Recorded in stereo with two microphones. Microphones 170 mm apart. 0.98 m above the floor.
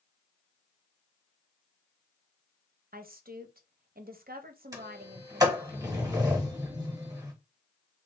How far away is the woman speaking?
About 0.6 m.